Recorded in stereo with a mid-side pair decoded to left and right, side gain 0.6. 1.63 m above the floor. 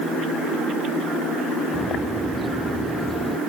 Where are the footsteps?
5° right.